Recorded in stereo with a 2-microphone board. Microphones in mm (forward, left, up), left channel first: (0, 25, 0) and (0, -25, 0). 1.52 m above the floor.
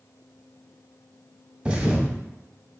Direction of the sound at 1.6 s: 20° right (ahead or behind).